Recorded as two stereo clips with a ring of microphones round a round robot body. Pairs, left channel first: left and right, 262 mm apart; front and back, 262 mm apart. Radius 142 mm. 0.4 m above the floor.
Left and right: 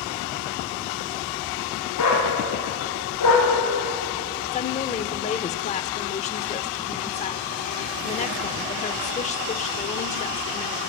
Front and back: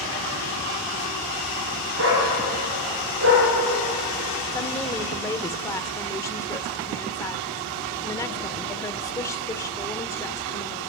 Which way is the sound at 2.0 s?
130° left.